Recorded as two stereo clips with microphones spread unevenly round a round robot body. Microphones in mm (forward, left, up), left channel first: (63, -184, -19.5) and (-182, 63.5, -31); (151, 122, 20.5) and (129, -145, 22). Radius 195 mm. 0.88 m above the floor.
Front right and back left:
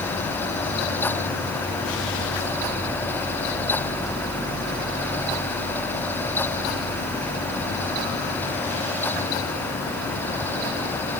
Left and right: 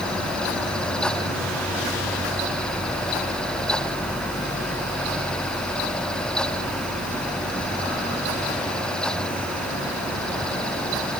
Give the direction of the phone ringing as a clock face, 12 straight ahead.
I don't hear a phone ringing.